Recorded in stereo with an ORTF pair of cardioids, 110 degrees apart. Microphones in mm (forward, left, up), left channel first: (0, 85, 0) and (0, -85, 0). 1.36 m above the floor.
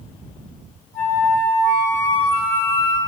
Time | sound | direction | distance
0.9 | a flute | 55° left | 3 m